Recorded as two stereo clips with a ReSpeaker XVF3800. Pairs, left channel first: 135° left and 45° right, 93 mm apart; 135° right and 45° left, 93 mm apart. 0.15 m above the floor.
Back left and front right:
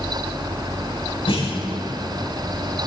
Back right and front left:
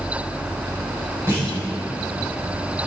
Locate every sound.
1.3 s a clunk: 110° left, 9.5 m